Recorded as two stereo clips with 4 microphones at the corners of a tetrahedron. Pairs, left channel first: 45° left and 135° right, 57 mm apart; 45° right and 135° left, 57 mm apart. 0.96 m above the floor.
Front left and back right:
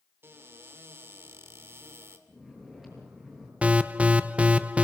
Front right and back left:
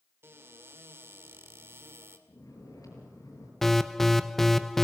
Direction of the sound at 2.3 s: 50° right.